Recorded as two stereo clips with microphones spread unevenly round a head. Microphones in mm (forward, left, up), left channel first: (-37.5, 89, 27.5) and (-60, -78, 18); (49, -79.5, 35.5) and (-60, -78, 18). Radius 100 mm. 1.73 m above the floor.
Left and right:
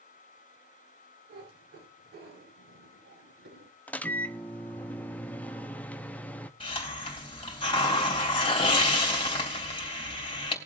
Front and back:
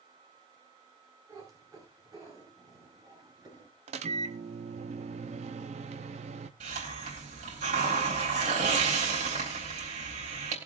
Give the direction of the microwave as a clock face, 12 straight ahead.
7 o'clock.